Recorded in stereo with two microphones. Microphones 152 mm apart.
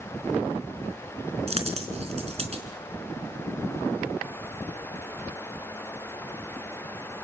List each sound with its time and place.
1.5 s a dropped coin: 40° right (ahead or behind), 3.5 m